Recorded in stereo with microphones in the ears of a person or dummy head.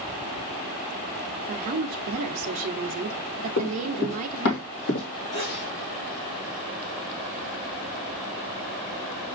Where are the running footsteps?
40° left (ahead or behind), 2 m; by 5.0 s 55° left (ahead or behind), 2.5 m.